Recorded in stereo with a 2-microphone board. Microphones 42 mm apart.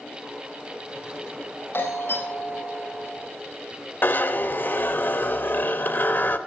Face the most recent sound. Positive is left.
turn(degrees=55)  # may be behind; listen again after turning